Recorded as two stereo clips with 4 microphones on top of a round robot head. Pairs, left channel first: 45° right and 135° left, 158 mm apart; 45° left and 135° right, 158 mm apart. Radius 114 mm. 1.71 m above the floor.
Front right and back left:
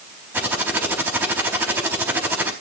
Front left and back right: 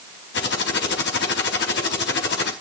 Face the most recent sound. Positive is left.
turn(degrees=60)